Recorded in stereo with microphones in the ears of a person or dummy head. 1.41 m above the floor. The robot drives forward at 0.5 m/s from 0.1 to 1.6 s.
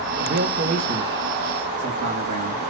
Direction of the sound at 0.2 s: 55° right (ahead or behind).